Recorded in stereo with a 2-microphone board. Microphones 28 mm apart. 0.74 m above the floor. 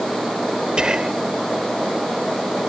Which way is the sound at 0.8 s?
35° right (ahead or behind).